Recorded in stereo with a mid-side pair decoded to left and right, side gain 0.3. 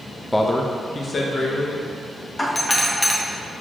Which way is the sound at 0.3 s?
15° left.